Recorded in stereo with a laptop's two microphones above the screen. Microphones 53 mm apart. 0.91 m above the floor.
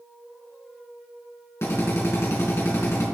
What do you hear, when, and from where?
1.6 s a drill: 55° left (ahead or behind), 4 m